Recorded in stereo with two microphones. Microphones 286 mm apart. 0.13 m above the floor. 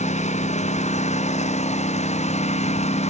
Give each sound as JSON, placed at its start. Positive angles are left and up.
{"t": 0.0, "sound": "a lawn mower", "side_deg": 25}